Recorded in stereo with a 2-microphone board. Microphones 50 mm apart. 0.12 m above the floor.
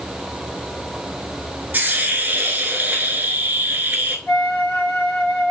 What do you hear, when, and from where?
1.7 s a hiss: 35° right (ahead or behind), 0.8 m
4.3 s a flute: 15° left (ahead or behind), 1.8 m